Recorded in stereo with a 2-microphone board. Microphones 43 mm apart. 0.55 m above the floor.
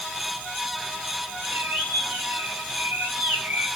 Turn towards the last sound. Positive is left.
turn(degrees=-65)  # may be behind; listen again after turning